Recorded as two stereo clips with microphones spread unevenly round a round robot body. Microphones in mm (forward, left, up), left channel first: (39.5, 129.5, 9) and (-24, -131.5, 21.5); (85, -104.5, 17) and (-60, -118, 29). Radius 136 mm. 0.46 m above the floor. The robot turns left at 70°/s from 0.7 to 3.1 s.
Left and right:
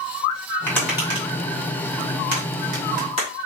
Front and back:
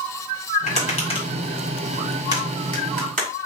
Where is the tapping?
5° right, 2 m; by 3.3 s 170° right, 2 m.